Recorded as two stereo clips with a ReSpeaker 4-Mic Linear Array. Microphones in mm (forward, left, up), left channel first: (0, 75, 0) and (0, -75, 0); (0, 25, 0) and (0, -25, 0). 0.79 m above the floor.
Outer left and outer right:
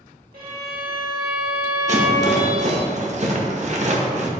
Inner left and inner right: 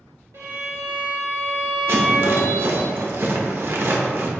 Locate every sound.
0.3 s a violin: 75° right (ahead or behind), 1.9 m
1.9 s a rattle: 50° right (ahead or behind), 0.9 m